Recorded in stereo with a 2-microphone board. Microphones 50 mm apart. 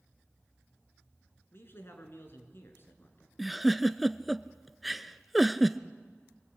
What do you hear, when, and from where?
1.5 s a man speaking: 55° left (ahead or behind), 4 m
3.4 s a giggle: centre (ahead or behind), 0.6 m